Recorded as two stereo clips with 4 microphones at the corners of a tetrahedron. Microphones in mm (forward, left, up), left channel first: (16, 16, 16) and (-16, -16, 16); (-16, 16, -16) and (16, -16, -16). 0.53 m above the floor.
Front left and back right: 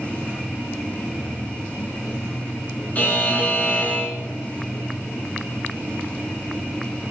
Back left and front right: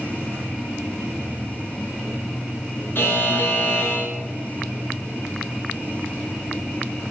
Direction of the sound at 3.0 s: 95° left.